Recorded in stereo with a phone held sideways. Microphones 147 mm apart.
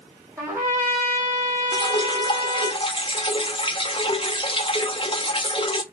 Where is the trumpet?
15° right (ahead or behind), 2.5 m.